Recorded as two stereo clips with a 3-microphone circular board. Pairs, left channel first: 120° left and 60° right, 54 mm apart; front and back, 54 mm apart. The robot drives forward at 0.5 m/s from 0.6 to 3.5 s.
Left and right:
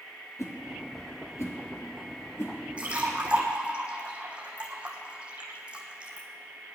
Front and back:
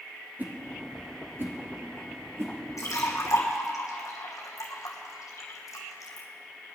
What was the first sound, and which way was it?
A whoosh, 125° left.